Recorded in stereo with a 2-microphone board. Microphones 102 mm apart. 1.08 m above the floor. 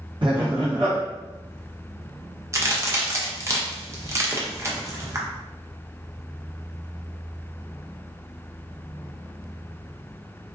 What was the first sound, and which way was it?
Laughter, 50° right (ahead or behind).